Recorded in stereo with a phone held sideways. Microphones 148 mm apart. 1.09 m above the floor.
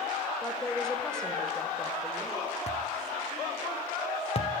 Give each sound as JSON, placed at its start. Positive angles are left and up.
{"t": 0.4, "sound": "a woman speaking", "side_deg": 5, "distance_m": 3.5}
{"t": 2.7, "sound": "a thud", "side_deg": 45, "distance_m": 2.0}